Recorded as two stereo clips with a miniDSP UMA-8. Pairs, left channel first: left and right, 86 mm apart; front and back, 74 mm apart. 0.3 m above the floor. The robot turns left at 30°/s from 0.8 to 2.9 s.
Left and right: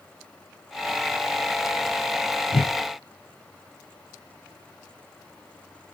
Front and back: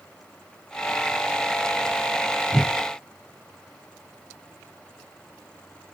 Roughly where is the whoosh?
Left.